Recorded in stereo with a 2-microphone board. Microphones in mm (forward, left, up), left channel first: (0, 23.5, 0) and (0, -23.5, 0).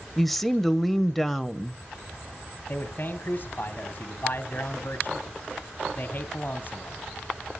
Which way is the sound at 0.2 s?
5° left (ahead or behind).